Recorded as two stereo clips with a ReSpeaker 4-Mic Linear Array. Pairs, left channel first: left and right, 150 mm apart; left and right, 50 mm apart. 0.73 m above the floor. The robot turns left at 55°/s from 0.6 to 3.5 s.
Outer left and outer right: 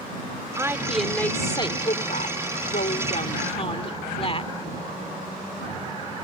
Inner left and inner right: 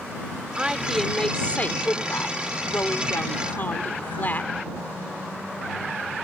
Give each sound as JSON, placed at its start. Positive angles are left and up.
{"t": 0.6, "sound": "a woman speaking", "azimuth_deg": -160}